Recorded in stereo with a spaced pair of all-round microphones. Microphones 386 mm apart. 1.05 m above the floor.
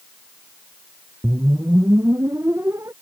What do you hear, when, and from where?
1.2 s a whoosh: 5° right (ahead or behind)